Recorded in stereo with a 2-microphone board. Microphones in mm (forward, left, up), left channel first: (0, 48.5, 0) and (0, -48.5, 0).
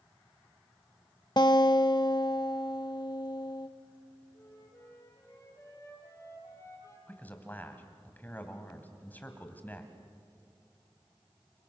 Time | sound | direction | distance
1.4 | a guitar | 50° left (ahead or behind) | 0.8 m
4.3 | a flute | 30° left (ahead or behind) | 7 m
7.1 | a man speaking | 20° left (ahead or behind) | 2.5 m